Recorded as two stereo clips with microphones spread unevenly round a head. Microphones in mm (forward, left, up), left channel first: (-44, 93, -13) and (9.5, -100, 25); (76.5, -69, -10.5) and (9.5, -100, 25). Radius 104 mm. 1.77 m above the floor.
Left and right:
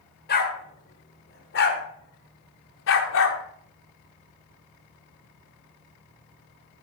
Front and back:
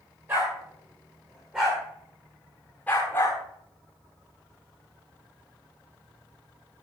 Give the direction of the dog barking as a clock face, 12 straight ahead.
7 o'clock.